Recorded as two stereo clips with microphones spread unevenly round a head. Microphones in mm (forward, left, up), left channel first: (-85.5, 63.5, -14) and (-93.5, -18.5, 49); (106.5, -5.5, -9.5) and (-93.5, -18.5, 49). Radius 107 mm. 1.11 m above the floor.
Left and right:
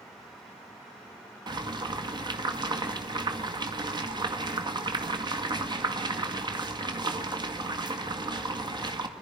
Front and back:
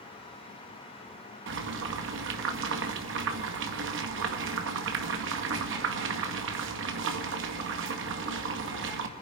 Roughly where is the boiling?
Behind right.